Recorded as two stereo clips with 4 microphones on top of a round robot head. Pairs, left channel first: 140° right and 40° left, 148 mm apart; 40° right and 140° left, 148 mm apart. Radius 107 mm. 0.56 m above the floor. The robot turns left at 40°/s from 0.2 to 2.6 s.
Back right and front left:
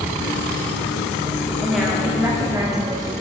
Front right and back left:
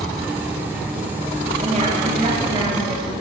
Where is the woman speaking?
135° left, 1.6 m; by 3.1 s 95° left, 1.6 m.